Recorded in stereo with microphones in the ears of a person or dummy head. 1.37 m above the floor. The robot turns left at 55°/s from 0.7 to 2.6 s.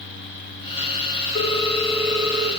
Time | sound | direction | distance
1.4 | a ringtone | 40° left | 1.1 m